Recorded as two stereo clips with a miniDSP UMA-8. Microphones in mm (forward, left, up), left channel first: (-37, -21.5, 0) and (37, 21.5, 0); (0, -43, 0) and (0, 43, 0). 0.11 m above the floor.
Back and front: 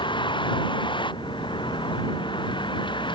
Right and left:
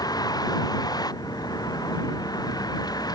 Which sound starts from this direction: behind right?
A vehicle, at 0.0 s.